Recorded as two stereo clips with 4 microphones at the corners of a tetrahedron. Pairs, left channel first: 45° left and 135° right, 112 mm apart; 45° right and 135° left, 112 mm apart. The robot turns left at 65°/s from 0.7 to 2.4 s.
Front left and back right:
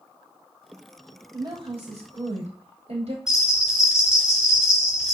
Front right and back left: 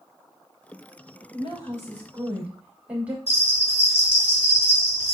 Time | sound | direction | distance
1.3 | a woman speaking | 80° right | 6.5 m
3.3 | a bell | 50° right | 4 m